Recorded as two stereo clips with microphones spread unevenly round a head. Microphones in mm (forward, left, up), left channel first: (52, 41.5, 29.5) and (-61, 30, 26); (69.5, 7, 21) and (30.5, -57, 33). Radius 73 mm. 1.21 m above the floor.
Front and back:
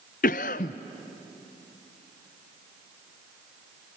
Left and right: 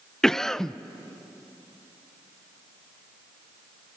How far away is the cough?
About 0.5 m.